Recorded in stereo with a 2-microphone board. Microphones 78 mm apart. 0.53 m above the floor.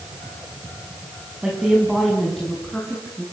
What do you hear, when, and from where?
1.4 s a woman speaking: 10° right (ahead or behind), 5 m; by 3.2 s 15° left (ahead or behind), 6 m